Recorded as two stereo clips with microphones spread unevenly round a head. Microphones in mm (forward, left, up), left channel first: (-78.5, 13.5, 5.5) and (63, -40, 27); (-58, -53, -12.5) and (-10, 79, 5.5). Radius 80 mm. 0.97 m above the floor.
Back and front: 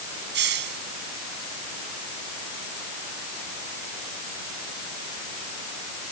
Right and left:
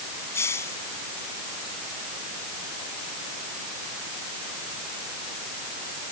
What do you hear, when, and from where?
0.3 s a hiss: 35° right